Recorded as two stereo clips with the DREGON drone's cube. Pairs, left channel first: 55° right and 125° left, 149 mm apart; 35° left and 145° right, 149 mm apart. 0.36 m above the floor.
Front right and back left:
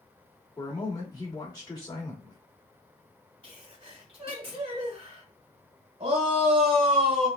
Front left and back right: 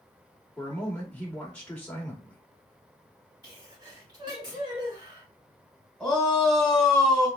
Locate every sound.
0.6 s a man speaking: 35° right, 1.1 m
3.4 s a sneeze: 160° left, 2.0 m
6.0 s a shout: 120° left, 1.8 m